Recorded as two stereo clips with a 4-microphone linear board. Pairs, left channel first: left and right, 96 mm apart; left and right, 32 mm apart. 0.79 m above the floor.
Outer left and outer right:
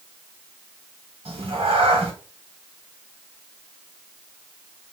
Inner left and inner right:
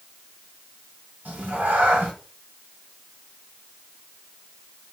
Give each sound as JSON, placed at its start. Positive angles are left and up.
{"t": 1.2, "sound": "a cat meowing", "side_deg": -70, "distance_m": 0.9}